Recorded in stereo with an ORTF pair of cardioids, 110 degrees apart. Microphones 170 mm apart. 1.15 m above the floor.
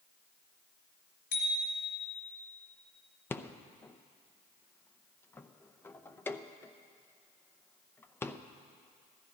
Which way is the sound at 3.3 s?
15° left.